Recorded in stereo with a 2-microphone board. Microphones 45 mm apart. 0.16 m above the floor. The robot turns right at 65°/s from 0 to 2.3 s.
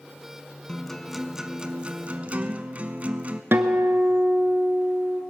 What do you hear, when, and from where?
0.7 s a guitar: 155° left, 0.8 m; by 3.4 s 100° right, 0.8 m
3.5 s a guitar: 55° right (ahead or behind), 0.9 m